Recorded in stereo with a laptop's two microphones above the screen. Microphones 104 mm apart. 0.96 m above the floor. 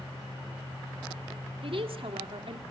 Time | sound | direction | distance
1.6 | a woman speaking | 60° right (ahead or behind) | 2 m